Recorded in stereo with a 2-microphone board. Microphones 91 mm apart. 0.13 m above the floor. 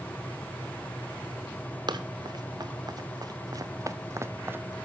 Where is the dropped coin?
No dropped coin in this recording.